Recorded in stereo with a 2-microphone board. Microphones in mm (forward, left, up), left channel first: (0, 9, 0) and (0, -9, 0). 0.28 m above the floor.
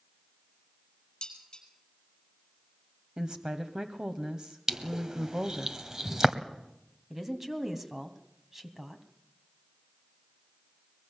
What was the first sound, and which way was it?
Dishes clattering, 40° left (ahead or behind).